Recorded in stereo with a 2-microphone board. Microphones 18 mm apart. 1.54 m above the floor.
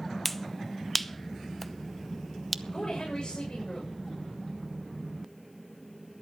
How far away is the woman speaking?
About 7 m.